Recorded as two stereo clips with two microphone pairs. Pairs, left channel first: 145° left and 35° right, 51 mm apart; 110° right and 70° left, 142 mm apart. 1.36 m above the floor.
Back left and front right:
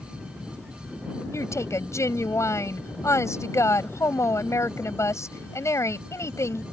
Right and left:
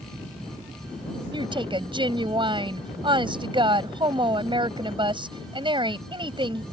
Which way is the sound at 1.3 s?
125° left.